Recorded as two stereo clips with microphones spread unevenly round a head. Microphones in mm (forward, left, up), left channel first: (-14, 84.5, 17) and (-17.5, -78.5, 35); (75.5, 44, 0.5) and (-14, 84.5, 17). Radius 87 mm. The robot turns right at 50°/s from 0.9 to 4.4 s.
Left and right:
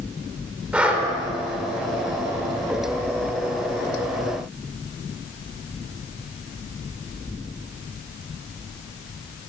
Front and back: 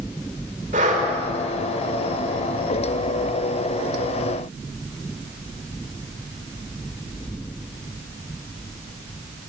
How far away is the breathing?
About 4 m.